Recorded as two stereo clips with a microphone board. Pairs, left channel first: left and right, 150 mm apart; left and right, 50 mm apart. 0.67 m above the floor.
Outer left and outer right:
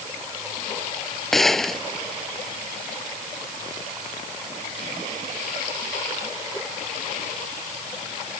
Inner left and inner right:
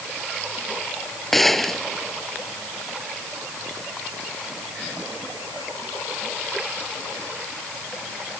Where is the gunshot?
Centre (ahead or behind).